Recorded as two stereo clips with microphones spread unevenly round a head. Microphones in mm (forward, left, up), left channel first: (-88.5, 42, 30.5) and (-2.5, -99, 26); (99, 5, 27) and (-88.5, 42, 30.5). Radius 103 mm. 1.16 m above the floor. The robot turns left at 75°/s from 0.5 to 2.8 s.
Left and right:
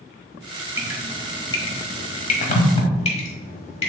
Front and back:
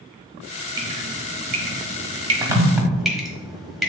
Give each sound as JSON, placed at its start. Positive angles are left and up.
{"t": 0.8, "sound": "dripping", "azimuth_deg": -125, "distance_m": 1.2}